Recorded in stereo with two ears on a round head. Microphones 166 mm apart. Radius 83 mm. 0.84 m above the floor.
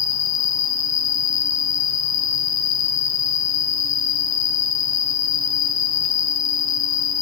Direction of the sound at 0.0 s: 65° left (ahead or behind).